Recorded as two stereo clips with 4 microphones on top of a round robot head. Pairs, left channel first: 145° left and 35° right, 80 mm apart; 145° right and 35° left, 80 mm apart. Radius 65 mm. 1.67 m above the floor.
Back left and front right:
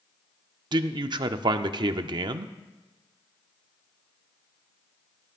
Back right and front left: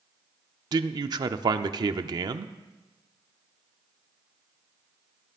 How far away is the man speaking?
About 0.6 m.